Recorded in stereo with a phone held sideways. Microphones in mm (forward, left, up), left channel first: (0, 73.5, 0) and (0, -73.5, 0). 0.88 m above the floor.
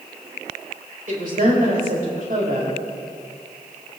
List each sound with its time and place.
1.1 s a woman speaking: 70° right (ahead or behind), 4 m